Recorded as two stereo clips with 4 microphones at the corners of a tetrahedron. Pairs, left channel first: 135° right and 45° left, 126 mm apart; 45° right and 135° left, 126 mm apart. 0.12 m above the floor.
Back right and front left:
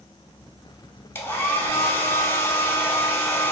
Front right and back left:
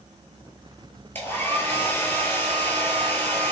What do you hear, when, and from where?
1.1 s a hair dryer: 90° right, 0.7 m